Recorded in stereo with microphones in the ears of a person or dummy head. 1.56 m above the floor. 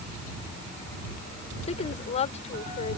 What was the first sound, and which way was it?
A woman speaking, 30° left (ahead or behind).